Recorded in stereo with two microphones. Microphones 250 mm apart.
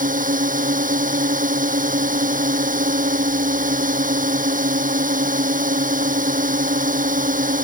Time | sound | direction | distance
0.0 | a drone | 30° right (ahead or behind) | ?